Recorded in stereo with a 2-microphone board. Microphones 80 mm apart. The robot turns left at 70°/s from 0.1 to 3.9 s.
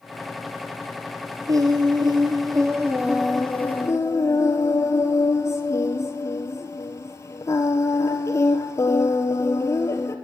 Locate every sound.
1.5 s singing: 50° right, 1.4 m; by 10.2 s 140° left, 1.4 m